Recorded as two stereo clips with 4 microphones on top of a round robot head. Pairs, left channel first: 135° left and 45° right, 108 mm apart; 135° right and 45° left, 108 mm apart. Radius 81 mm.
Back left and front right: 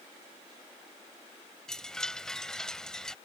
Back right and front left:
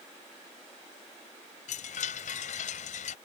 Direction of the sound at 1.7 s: 145° right.